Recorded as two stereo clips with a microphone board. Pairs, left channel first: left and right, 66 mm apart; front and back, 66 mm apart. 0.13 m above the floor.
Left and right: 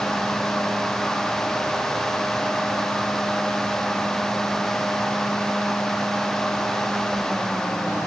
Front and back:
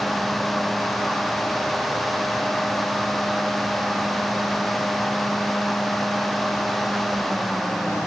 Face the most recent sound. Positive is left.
No sound to turn to.